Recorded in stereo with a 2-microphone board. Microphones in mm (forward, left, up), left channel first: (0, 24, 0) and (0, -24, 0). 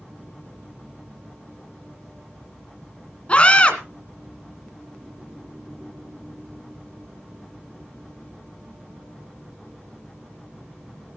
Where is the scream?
25° left (ahead or behind), 1.7 m.